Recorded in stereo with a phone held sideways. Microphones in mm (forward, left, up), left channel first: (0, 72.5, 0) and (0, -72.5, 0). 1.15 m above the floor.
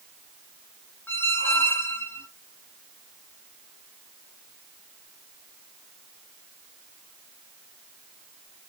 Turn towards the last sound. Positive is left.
turn(degrees=15)  # may be behind; listen again after turning